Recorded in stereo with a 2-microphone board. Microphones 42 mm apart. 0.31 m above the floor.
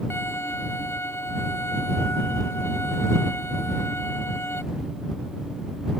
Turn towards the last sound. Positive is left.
turn(degrees=75)  # may be behind; listen again after turning